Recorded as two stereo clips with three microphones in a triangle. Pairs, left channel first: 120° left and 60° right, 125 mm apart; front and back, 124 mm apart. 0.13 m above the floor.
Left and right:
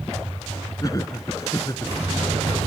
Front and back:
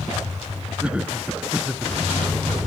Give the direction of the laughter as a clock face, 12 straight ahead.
8 o'clock.